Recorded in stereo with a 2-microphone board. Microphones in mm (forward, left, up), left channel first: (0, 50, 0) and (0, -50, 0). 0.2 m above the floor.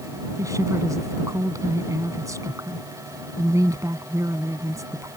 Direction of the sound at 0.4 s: 35° right (ahead or behind).